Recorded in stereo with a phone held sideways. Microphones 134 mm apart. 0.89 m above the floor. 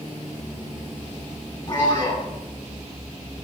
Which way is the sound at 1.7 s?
35° left (ahead or behind).